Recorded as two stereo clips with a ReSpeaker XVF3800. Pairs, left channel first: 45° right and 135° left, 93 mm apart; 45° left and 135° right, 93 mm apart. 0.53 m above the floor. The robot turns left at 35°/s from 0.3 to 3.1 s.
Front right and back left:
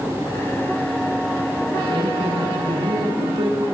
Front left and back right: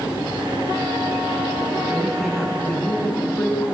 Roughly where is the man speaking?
Behind left.